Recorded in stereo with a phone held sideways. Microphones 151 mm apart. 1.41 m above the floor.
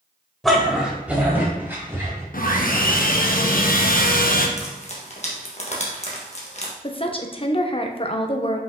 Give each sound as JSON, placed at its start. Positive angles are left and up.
{"t": 0.4, "sound": "a dog barking", "side_deg": 0, "distance_m": 1.3}
{"t": 2.3, "sound": "sawing", "side_deg": 70, "distance_m": 0.8}
{"t": 4.6, "sound": "frying", "side_deg": 45, "distance_m": 1.5}
{"t": 6.8, "sound": "a woman speaking", "side_deg": 35, "distance_m": 0.8}